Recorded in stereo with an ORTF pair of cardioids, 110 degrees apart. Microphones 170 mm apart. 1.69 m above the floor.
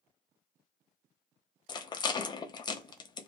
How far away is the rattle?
About 0.6 m.